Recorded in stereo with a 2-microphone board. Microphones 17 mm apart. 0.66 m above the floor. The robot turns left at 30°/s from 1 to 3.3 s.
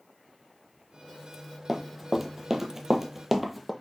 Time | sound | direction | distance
1.7 | running footsteps | centre (ahead or behind) | 1.0 m